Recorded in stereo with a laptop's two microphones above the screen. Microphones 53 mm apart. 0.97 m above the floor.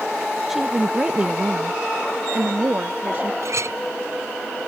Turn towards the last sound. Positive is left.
turn(degrees=-65)  # may be behind; listen again after turning